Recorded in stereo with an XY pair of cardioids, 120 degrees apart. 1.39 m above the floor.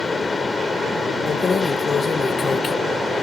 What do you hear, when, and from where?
0.0 s a fan: 25° left
1.3 s keys jangling: 40° left